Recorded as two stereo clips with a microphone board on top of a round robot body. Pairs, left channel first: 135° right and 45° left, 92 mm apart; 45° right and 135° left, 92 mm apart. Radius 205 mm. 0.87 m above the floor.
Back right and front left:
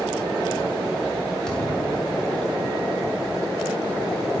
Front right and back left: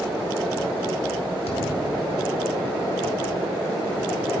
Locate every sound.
1.5 s a thud: 50° right, 1.4 m